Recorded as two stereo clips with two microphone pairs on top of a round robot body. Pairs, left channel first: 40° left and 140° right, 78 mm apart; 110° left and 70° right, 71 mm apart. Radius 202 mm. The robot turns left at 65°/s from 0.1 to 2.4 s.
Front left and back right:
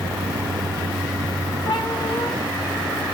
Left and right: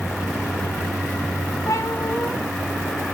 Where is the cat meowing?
65° left, 3 m; by 2.3 s 20° left, 3 m.